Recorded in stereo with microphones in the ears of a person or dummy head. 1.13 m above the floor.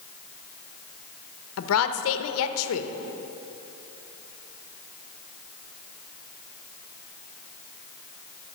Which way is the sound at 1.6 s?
80° left.